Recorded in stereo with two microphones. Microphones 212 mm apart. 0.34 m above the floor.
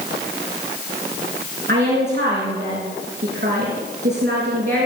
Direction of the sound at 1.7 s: 60° right (ahead or behind).